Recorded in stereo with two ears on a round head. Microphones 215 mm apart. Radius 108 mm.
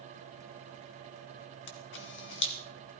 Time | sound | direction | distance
1.7 | a camera shutter | 50° left (ahead or behind) | 1.8 m